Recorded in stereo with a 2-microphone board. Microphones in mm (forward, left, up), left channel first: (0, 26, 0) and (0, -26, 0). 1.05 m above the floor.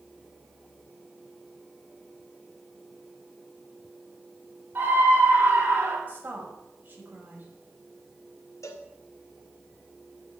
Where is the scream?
45° right (ahead or behind), 8.5 m.